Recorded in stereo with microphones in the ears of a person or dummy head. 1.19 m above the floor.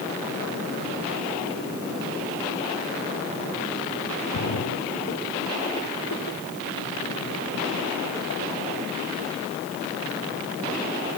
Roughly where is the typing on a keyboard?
No typing on a keyboard in this recording.